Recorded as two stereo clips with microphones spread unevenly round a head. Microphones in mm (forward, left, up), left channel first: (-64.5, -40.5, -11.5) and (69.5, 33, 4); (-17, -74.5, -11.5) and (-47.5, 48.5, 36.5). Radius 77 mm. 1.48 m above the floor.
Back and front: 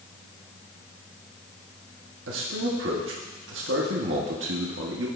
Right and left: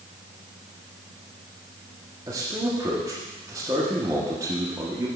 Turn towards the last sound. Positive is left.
turn(degrees=30)